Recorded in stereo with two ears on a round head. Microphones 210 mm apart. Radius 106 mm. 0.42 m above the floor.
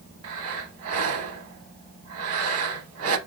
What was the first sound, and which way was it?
Breathing, 60° right (ahead or behind).